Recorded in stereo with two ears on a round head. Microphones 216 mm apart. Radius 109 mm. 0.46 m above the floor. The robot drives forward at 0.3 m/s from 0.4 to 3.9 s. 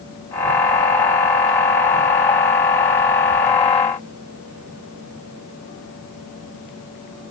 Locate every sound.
Only background noise.